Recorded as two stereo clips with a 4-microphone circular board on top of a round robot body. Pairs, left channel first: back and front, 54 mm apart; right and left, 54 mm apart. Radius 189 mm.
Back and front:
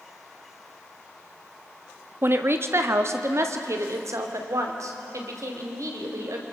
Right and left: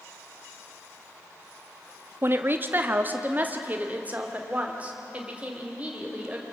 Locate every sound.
2.2 s a woman speaking: 45° left, 1.4 m; by 6.4 s 20° left, 4 m